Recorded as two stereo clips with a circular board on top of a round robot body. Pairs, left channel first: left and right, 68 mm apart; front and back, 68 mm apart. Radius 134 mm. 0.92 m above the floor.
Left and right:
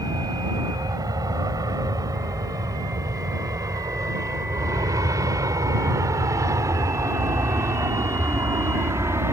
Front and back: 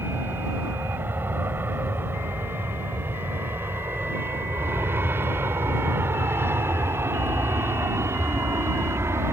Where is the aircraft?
120° right; by 9.3 s 135° right.